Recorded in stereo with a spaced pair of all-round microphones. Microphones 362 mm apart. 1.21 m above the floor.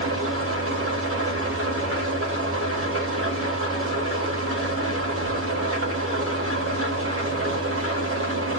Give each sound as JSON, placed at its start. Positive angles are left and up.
{"t": 0.0, "sound": "an engine running", "side_deg": -35, "distance_m": 1.1}